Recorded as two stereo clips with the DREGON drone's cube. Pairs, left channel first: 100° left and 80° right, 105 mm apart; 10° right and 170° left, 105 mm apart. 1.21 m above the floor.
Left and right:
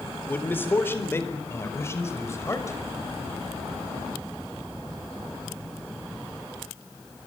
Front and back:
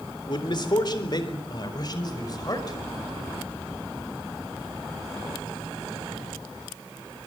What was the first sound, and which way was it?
A man speaking, 30° left.